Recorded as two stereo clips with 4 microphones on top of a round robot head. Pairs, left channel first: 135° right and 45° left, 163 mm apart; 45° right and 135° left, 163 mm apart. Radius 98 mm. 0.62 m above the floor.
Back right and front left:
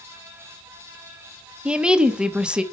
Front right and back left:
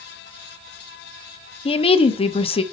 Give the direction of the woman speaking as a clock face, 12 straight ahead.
1 o'clock.